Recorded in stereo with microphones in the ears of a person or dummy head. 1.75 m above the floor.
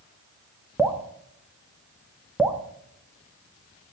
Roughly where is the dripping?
Centre.